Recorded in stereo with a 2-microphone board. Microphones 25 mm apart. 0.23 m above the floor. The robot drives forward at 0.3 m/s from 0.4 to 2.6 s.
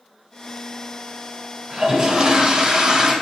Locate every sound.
1.7 s a toilet flushing: 40° right (ahead or behind), 2.0 m; by 3.1 s 45° right (ahead or behind), 1.8 m